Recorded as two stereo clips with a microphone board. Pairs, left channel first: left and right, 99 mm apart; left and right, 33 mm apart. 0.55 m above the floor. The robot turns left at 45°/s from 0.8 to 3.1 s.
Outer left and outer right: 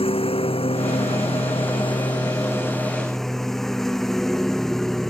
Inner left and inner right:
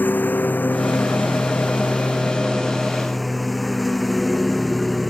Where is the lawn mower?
105° left; by 5.1 s 5° left.